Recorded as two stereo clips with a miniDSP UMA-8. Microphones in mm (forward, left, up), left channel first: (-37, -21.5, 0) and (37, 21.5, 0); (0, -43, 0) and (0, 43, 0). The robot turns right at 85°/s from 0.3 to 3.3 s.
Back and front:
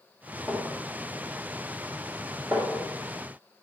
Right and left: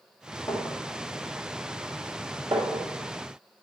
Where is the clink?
70° right, 3 m; by 2.9 s 135° left, 3 m.